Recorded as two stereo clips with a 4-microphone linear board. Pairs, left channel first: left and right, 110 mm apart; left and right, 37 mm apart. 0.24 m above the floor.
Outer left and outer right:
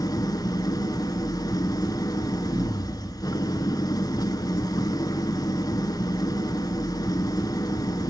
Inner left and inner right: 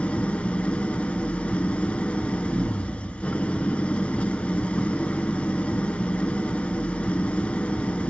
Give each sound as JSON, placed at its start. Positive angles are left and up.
{"t": 0.0, "sound": "an engine running", "side_deg": 35, "distance_m": 1.0}